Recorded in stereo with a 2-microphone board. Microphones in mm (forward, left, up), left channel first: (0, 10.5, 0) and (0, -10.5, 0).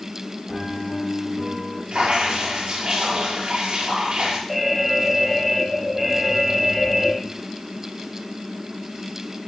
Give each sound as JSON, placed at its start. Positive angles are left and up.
{"t": 0.5, "sound": "a piano", "side_deg": 0, "distance_m": 2.5}
{"t": 1.9, "sound": "dripping", "side_deg": -50, "distance_m": 7.0}
{"t": 4.5, "sound": "an alarm", "side_deg": -10, "distance_m": 2.0}